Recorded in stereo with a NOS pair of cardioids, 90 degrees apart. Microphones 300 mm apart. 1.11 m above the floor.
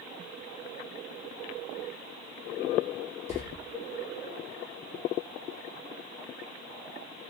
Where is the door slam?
20° left, 1.4 m.